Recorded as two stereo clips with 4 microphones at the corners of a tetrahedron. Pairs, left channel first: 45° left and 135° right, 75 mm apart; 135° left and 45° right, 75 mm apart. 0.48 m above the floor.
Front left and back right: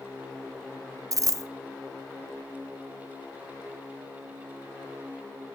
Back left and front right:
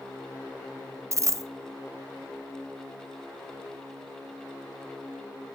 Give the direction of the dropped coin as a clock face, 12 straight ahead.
3 o'clock.